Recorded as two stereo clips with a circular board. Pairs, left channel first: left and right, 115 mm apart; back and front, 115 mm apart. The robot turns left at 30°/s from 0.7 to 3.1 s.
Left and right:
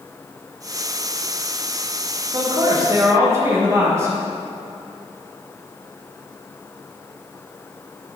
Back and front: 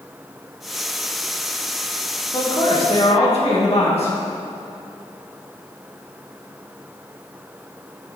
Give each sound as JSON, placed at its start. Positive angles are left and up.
{"t": 2.3, "sound": "a man speaking", "azimuth_deg": -130, "distance_m": 2.5}